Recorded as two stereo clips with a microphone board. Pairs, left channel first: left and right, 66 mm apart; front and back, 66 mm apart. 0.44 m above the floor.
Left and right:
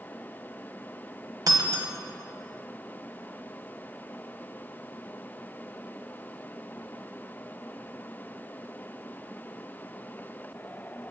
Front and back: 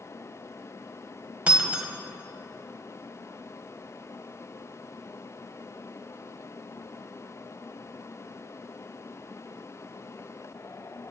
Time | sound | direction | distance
1.5 | breaking glass | 110° right | 1.3 m